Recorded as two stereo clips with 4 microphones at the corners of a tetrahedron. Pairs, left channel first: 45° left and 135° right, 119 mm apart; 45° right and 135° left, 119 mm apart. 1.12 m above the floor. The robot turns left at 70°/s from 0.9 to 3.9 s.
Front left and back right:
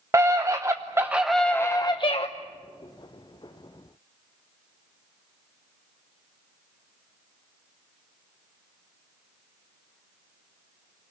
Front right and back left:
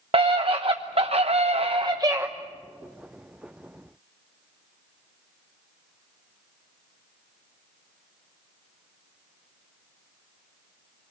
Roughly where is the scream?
Behind.